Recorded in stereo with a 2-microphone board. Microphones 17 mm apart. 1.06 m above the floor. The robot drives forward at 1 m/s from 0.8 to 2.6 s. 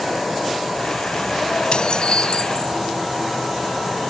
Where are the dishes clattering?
50° left (ahead or behind); by 2.8 s 60° left (ahead or behind).